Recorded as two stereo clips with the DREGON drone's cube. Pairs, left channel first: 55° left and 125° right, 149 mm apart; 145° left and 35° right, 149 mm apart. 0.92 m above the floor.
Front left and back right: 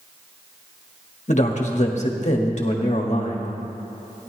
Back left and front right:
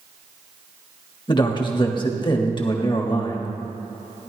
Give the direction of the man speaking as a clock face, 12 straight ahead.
9 o'clock.